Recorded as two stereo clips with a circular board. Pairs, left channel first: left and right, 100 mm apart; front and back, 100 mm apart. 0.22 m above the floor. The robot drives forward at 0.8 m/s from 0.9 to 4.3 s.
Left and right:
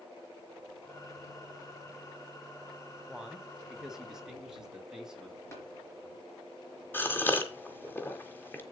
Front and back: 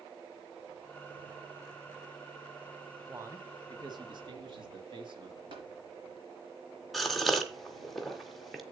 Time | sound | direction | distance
3.1 | a man speaking | 160° right | 1.3 m
5.5 | tapping | 150° left | 4 m
6.9 | a gasp | 90° left | 1.4 m